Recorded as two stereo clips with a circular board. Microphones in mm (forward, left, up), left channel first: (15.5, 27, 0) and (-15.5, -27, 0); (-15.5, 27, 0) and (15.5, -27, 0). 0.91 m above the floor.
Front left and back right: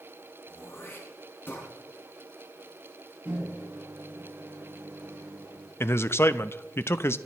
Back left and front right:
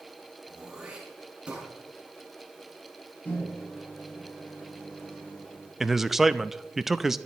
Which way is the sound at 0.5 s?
10° left.